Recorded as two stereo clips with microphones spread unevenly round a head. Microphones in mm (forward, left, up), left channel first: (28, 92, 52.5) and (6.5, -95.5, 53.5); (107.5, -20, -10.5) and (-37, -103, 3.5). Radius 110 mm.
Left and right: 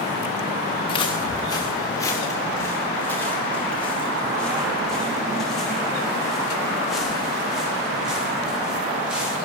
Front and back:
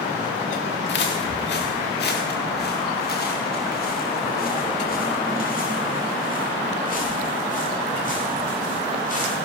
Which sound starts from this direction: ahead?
Footsteps, at 0.9 s.